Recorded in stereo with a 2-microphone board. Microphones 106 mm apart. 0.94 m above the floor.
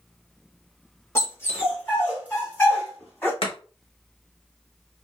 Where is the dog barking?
25° left (ahead or behind), 1.1 m; by 3.3 s 20° left (ahead or behind), 2.5 m.